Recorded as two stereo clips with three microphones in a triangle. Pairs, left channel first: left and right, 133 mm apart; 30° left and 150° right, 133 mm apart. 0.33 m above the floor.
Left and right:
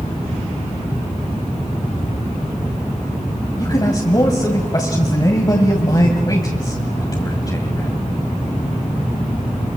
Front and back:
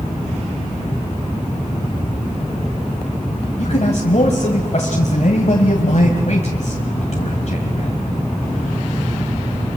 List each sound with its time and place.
3.6 s a man speaking: 35° left, 2 m